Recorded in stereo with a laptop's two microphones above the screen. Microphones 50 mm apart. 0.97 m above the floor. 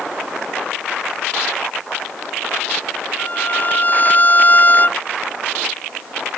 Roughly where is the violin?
Left.